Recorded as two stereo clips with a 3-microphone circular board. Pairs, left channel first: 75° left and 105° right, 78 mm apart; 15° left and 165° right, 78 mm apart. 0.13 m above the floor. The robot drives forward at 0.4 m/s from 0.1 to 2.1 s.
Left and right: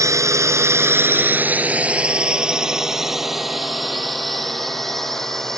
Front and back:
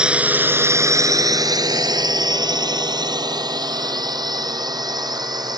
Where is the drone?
90° right; by 5.6 s 160° left.